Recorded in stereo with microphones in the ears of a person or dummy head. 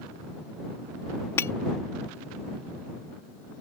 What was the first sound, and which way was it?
Breaking glass, 15° left (ahead or behind).